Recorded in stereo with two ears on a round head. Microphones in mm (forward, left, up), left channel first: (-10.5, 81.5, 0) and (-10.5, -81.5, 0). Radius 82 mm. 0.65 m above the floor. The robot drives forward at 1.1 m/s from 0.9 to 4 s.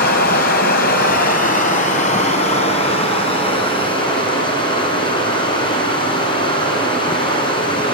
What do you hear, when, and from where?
0.0 s running water: 55° left (ahead or behind), 3.5 m; by 8.0 s 30° left (ahead or behind), 6 m